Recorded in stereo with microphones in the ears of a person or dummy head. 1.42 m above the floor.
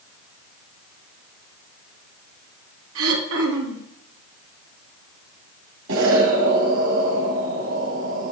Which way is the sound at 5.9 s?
65° right (ahead or behind).